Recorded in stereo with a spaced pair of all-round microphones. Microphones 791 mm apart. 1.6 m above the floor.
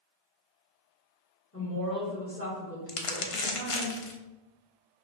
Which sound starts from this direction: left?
Crumpling, at 2.9 s.